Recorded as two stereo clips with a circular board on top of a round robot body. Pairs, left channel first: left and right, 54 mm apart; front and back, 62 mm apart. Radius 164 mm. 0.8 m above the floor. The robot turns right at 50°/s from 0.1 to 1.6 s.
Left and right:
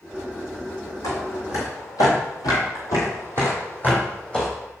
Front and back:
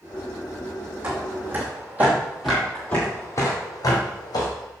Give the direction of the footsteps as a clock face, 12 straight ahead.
8 o'clock.